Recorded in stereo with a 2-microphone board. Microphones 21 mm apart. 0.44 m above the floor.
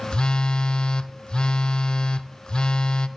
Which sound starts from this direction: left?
A phone buzzing, at 0.1 s.